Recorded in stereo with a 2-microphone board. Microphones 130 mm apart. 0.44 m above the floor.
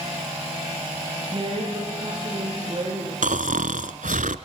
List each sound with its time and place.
1.3 s a woman speaking: 40° right (ahead or behind), 9.5 m
3.2 s snoring: 80° right, 1.1 m